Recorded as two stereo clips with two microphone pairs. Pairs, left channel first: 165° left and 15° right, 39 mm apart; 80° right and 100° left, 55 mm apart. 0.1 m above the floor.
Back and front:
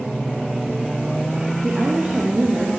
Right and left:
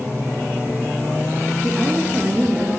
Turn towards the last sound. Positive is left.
turn(degrees=30)